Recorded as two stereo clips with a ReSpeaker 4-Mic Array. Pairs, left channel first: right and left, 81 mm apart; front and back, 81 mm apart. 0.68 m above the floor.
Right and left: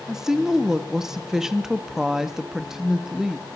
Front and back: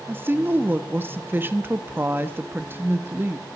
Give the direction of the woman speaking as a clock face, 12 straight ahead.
7 o'clock.